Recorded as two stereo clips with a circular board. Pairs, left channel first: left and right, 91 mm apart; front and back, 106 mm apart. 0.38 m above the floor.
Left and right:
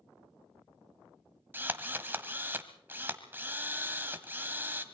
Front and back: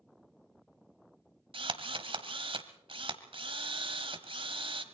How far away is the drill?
About 1.5 m.